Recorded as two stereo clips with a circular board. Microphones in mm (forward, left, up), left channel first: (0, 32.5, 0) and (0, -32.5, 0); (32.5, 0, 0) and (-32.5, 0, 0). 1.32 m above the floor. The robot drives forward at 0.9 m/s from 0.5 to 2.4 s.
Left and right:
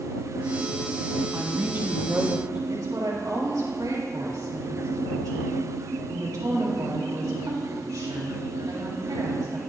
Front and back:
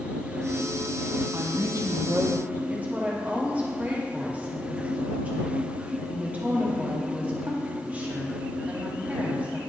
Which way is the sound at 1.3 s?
135° right.